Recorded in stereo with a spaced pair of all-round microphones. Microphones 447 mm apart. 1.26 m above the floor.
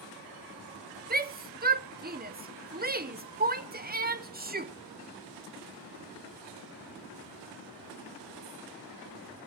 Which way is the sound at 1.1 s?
20° right (ahead or behind).